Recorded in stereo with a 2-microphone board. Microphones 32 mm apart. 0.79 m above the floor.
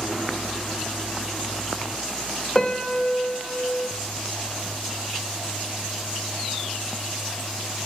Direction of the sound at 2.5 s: 20° left (ahead or behind).